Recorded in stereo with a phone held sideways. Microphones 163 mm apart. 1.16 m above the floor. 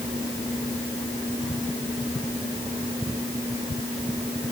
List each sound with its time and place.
Only background noise.